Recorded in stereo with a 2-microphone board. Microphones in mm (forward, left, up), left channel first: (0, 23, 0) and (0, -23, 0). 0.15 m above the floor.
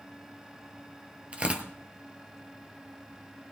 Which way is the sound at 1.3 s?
30° right (ahead or behind).